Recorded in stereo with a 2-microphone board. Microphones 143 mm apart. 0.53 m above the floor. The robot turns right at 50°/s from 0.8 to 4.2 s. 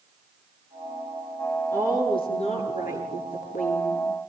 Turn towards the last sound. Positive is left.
turn(degrees=140)